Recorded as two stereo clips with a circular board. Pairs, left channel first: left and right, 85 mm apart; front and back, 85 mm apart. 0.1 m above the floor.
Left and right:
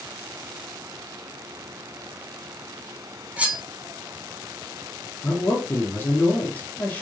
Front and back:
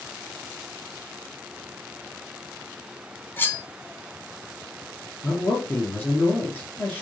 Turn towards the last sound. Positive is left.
turn(degrees=45)